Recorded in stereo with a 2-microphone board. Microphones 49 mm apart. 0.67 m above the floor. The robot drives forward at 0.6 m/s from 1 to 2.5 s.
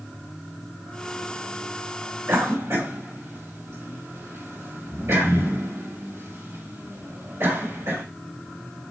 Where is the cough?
70° right (ahead or behind), 3 m.